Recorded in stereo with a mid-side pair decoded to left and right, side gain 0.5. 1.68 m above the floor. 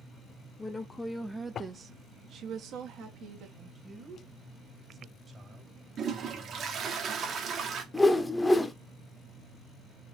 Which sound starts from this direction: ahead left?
A woman speaking, at 0.6 s.